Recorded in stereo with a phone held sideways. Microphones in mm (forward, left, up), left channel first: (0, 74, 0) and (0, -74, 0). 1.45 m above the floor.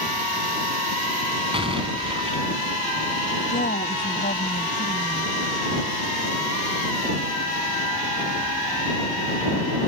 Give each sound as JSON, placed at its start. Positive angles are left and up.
{"t": 1.5, "sound": "an explosion", "side_deg": -35}
{"t": 3.5, "sound": "a woman speaking", "side_deg": 80}